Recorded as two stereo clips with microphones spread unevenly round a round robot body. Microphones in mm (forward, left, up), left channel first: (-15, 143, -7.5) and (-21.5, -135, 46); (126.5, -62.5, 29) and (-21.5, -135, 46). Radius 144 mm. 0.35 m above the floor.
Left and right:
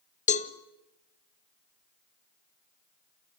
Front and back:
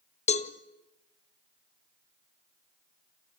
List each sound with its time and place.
0.3 s a cowbell: 45° left, 1.4 m